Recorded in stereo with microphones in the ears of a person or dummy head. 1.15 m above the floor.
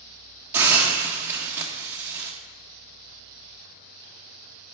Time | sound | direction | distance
0.5 | a hiss | 15° right (ahead or behind) | 1.2 m